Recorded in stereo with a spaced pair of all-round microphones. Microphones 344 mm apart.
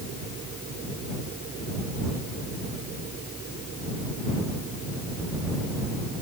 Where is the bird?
I don't hear a bird.